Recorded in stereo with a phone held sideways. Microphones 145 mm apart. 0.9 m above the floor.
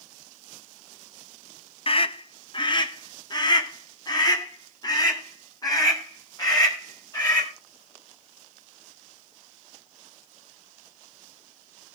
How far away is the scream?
About 0.6 m.